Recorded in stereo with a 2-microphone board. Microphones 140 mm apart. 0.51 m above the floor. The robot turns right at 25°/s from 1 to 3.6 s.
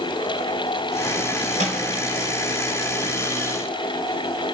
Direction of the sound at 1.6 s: 60° right (ahead or behind).